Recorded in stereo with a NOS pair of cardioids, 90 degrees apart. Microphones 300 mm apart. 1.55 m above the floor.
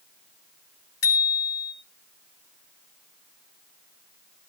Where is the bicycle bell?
50° left, 5 m.